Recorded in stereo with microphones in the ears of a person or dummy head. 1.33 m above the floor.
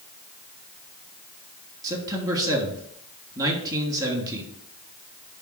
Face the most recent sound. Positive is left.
turn(degrees=-20)  # may be behind; listen again after turning